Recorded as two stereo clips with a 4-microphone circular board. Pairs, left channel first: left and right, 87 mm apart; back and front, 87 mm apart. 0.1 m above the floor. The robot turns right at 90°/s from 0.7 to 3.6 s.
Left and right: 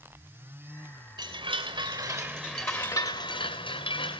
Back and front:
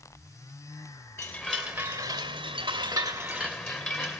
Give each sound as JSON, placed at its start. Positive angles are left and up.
{"t": 1.2, "sound": "a chime", "azimuth_deg": -115, "distance_m": 2.0}